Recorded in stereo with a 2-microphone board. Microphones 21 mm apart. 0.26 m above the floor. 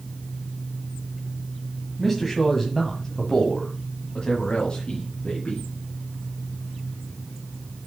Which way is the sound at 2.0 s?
5° left (ahead or behind).